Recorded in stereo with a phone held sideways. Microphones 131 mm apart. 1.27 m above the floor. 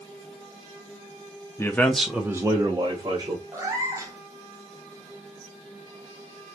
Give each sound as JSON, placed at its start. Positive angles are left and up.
{"t": 1.6, "sound": "a man speaking", "side_deg": 20, "distance_m": 0.6}
{"t": 3.5, "sound": "a cat meowing", "side_deg": -25, "distance_m": 0.7}